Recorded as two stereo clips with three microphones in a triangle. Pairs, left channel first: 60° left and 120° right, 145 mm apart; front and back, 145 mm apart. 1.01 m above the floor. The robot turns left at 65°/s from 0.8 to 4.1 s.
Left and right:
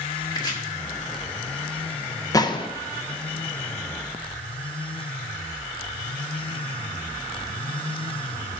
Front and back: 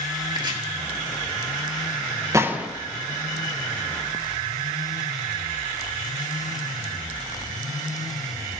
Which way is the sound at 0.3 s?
120° left.